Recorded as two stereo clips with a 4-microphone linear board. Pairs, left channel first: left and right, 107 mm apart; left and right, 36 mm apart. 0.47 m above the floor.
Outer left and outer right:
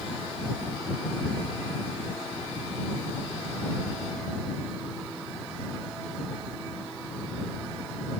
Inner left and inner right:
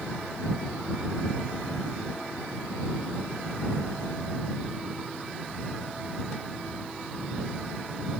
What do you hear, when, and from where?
Only background noise.